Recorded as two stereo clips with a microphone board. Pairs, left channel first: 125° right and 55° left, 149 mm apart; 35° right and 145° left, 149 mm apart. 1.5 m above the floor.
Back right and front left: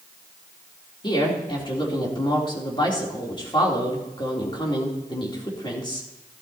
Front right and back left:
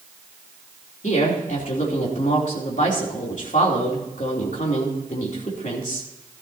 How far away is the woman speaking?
About 3 m.